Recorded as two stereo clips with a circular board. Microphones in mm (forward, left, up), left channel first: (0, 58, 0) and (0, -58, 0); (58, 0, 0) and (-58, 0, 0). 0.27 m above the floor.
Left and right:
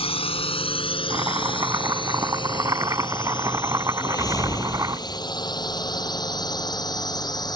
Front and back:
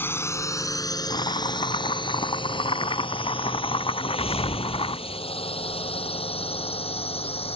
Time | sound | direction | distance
0.0 | a drone | 70° left | ?
1.1 | chopping | 35° right | ?
4.0 | a whoosh | 30° left | ?